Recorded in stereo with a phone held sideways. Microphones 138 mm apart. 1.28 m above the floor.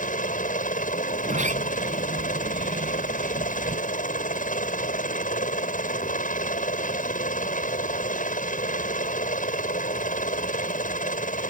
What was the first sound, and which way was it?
A helicopter, 70° left (ahead or behind).